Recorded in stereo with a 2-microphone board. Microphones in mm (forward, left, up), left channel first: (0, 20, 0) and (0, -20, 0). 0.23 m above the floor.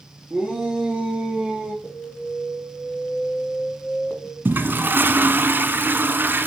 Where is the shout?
20° right (ahead or behind), 3 m; by 1.7 s 35° right (ahead or behind), 4 m.